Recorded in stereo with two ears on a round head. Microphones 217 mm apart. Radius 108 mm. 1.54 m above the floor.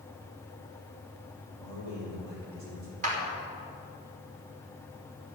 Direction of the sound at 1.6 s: 85° right.